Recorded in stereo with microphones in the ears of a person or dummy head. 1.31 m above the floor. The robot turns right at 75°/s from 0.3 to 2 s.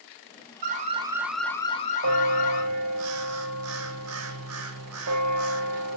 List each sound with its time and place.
0.6 s an alarm: 50° right, 1.2 m; by 2.6 s 50° left, 1.2 m
2.0 s a bell: 85° right, 1.0 m